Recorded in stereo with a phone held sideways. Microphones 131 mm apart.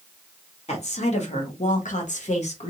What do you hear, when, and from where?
0.7 s a woman speaking: 55° left (ahead or behind), 1.4 m; by 2.7 s 50° left (ahead or behind), 0.8 m